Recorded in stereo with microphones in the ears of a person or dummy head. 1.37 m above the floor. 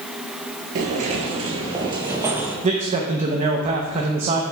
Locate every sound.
0.8 s footsteps: 40° right (ahead or behind), 1.8 m; by 2.5 s 10° right (ahead or behind), 2 m
2.6 s a man speaking: 35° right (ahead or behind), 0.9 m